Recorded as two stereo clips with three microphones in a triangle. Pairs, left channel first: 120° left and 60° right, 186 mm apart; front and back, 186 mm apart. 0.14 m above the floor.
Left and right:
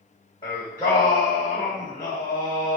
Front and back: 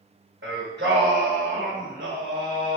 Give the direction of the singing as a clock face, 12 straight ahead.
6 o'clock.